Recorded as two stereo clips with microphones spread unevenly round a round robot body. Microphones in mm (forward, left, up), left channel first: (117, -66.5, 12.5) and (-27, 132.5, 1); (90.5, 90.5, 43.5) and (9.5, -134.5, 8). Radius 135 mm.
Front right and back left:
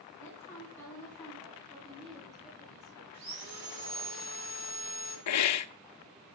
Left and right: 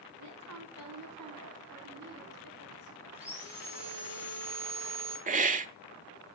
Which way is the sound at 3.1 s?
155° left.